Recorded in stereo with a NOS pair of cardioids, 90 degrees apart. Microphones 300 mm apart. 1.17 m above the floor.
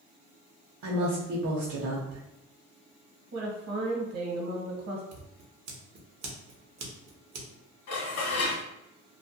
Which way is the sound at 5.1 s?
60° right.